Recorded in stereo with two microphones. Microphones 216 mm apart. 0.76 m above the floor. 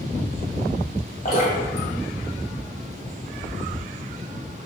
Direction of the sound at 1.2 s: 45° left (ahead or behind).